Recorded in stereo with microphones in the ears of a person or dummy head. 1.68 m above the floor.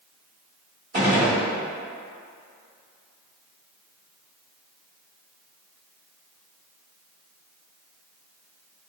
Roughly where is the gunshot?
Right.